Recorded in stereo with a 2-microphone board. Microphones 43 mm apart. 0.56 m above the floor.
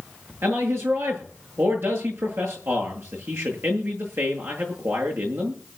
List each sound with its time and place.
0.4 s a man speaking: 75° right (ahead or behind), 9 m